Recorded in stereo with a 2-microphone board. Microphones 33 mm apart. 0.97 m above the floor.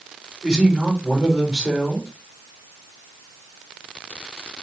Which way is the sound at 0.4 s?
10° right (ahead or behind).